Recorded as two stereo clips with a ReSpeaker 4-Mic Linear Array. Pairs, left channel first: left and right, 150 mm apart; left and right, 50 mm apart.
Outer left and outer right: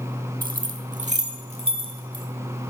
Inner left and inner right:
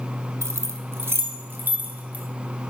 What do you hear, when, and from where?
0.4 s keys jangling: 70° right (ahead or behind), 0.9 m; by 2.2 s 35° right (ahead or behind), 1.7 m